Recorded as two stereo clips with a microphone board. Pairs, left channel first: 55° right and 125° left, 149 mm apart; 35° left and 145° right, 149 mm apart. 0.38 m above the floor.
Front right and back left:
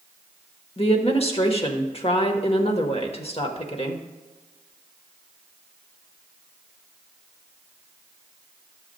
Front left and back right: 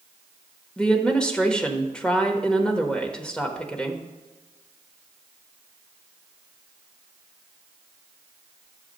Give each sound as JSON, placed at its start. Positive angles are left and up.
{"t": 0.8, "sound": "a woman speaking", "azimuth_deg": -45, "distance_m": 1.1}